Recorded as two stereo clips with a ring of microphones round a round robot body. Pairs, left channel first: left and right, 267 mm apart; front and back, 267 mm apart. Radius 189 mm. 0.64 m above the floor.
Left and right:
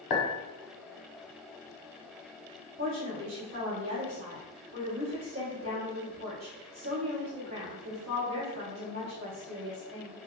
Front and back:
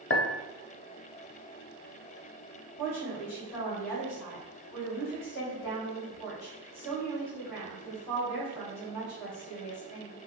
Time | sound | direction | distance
0.1 | a clink | 50° left | 0.6 m
2.8 | a woman speaking | 95° right | 1.5 m